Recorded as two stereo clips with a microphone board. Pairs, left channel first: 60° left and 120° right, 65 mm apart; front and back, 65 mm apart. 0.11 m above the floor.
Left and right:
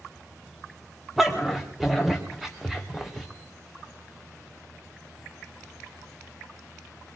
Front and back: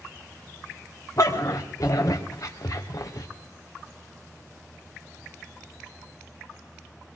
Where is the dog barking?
35° right, 2.5 m.